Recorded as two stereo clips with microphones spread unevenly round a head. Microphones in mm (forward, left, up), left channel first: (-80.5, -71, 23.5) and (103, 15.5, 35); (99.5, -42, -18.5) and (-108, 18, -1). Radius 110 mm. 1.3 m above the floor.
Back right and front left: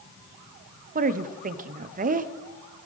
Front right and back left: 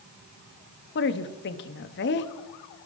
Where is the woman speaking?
15° right, 0.7 m.